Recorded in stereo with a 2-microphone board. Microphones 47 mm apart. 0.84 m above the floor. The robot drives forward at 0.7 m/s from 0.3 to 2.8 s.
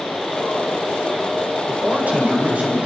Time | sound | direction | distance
1.7 | a man speaking | 40° right (ahead or behind) | 4 m